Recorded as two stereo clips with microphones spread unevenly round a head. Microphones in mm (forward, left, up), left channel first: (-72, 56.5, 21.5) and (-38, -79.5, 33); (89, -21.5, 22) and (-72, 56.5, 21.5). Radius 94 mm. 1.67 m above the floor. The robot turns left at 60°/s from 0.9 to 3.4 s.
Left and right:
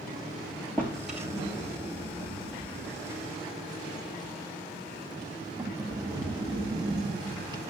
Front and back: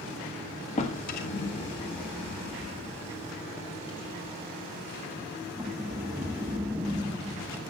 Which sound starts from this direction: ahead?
A drawer, at 0.8 s.